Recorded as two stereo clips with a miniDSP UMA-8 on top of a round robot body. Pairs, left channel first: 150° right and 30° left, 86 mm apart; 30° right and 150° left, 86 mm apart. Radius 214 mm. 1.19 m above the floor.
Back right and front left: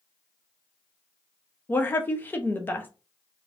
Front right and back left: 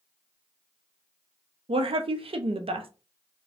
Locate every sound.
1.7 s a woman speaking: 140° left, 0.7 m